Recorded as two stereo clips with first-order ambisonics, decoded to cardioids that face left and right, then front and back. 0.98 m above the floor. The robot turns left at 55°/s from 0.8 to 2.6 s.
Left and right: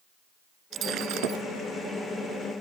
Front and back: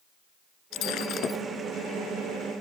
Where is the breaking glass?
35° right; by 1.4 s 70° right.